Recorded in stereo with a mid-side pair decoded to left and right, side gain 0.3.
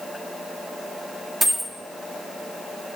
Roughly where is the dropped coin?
Ahead right.